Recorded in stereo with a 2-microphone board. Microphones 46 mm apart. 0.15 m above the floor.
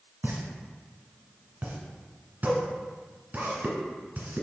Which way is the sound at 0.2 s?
40° right (ahead or behind).